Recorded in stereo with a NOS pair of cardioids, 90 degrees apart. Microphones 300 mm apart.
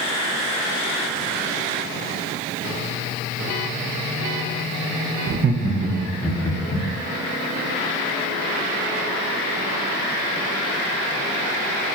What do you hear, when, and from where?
5.3 s laughter: 45° right, 1.0 m; by 6.9 s 30° left, 1.0 m